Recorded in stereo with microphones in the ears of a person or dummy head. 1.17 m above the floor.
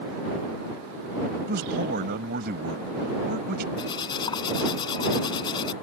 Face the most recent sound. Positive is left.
turn(degrees=25)  # may be behind; listen again after turning